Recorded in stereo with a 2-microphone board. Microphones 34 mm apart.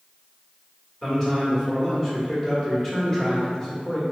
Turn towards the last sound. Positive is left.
turn(degrees=20)  # may be behind; listen again after turning